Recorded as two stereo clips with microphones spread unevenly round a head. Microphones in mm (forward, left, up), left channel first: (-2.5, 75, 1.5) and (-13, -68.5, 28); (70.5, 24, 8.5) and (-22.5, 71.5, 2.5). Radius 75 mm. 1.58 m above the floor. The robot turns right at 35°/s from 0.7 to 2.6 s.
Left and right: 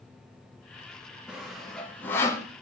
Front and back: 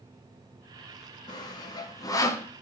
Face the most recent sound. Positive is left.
turn(degrees=20)